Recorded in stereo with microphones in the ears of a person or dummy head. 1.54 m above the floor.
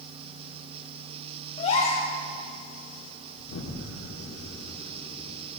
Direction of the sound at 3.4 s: 75° left (ahead or behind).